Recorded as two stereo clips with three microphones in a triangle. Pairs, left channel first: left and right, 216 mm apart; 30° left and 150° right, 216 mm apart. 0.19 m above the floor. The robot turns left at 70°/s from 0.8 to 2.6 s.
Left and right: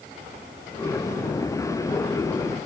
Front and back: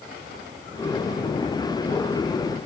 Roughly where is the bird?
I don't hear a bird.